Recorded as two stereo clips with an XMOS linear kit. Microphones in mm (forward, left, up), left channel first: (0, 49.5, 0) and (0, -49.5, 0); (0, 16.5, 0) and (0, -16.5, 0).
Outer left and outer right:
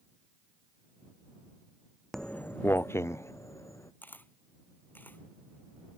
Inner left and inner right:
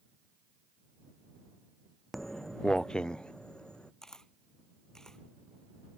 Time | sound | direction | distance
2.1 | footsteps | 5° left (ahead or behind) | ?
4.0 | a camera shutter | 20° left (ahead or behind) | ?